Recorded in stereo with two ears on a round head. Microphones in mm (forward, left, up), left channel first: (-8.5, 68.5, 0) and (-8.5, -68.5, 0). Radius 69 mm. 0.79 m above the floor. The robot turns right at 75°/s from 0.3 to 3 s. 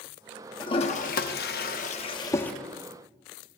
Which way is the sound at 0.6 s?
25° left (ahead or behind).